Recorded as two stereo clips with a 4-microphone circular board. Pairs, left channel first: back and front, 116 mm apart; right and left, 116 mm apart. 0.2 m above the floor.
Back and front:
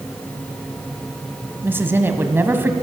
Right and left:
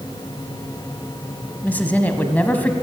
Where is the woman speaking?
35° right, 1.0 m.